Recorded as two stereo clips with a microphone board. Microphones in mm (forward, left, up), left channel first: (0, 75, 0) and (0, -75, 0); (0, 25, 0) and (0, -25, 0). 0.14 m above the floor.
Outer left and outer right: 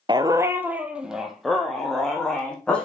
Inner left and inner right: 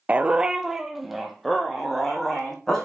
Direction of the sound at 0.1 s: 30° right (ahead or behind).